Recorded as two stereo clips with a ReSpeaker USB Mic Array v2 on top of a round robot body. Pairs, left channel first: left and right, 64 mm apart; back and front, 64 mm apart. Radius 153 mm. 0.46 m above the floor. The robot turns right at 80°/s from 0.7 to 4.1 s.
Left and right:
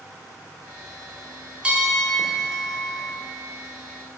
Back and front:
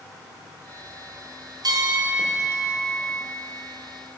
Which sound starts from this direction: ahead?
A bell, at 1.6 s.